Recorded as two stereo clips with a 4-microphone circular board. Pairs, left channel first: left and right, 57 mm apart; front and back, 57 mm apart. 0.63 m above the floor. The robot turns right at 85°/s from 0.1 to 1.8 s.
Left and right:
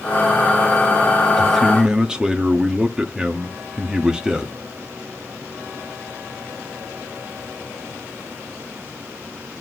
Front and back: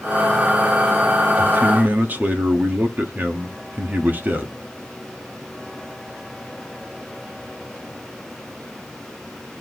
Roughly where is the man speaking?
Behind.